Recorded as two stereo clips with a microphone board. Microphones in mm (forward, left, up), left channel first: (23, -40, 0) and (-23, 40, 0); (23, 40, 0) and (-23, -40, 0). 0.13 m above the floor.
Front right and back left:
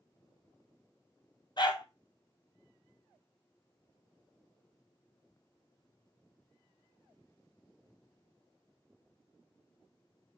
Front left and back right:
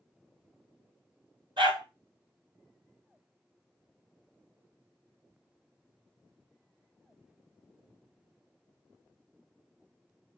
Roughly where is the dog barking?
Right.